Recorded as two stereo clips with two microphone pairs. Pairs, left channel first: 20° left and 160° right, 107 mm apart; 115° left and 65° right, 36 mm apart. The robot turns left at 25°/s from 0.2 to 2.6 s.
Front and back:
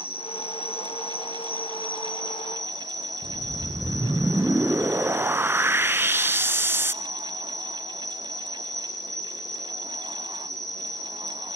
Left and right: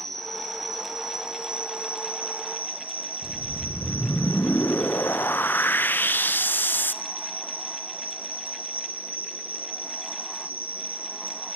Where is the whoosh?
130° left, 0.5 m.